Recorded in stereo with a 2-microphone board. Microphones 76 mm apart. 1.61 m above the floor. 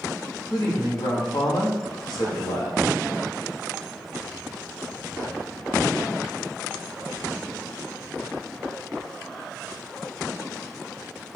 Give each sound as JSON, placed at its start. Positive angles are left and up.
{"t": 0.5, "sound": "a man speaking", "side_deg": 70, "distance_m": 2.5}